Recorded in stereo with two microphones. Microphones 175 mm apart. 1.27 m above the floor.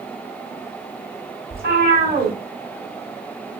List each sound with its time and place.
1.5 s a cat meowing: 60° right (ahead or behind), 1.7 m